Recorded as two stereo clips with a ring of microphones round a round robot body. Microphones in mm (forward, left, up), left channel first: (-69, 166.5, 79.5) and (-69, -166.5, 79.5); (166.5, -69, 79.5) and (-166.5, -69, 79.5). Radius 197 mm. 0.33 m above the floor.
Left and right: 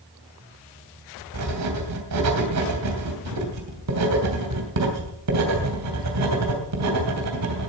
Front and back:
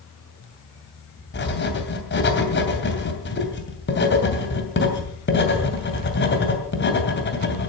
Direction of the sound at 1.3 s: 55° right.